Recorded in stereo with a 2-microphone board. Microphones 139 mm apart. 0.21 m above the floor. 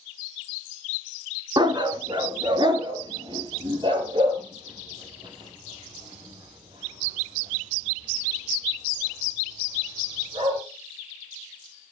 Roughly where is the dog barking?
Right.